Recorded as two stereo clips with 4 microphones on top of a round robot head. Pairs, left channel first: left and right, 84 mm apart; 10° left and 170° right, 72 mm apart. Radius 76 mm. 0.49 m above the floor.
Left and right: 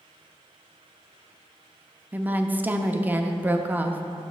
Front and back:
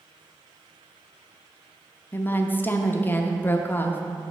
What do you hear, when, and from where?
2.1 s a woman speaking: 35° right, 0.8 m